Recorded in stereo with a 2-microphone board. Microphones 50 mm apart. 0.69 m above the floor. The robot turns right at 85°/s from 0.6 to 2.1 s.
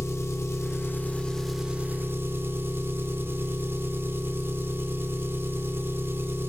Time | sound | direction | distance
0.0 | an engine running | 105° left | 1.5 m